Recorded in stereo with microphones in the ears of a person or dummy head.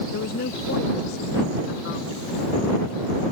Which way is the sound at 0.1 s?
55° left (ahead or behind).